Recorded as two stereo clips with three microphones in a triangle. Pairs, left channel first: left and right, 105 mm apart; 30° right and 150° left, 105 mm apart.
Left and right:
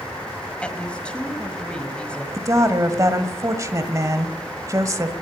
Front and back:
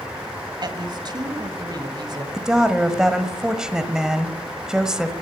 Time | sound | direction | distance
0.6 | a woman speaking | 165° left | 1.6 m
2.3 | a woman speaking | 130° right | 1.3 m